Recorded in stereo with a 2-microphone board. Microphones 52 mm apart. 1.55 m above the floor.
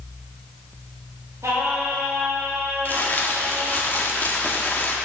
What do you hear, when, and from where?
1.4 s singing: 80° right, 3 m
2.9 s crumpling: 35° left (ahead or behind), 1.4 m